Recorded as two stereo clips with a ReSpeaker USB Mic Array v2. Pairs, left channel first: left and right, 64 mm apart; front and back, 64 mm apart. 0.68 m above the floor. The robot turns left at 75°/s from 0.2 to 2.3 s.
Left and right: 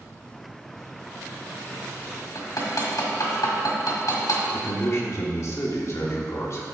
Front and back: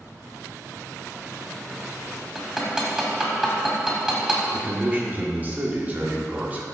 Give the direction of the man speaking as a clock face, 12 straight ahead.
8 o'clock.